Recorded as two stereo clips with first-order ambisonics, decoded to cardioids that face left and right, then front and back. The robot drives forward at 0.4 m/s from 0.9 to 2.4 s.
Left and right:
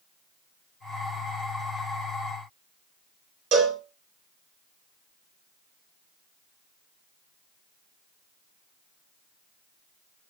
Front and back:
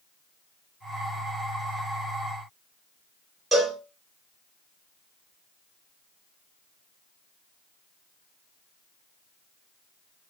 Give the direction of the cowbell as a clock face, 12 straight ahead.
4 o'clock.